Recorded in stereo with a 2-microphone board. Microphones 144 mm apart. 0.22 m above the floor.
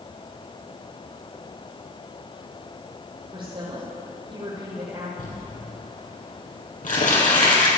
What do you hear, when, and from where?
3.3 s a woman speaking: 35° right (ahead or behind), 7.5 m
5.2 s crumpling: 75° left (ahead or behind), 6 m